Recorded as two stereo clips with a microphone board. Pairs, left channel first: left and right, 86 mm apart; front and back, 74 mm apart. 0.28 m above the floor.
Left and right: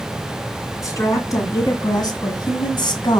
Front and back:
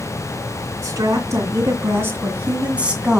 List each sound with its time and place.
0.8 s a woman speaking: 140° left, 2.5 m; by 3.2 s 100° left, 1.9 m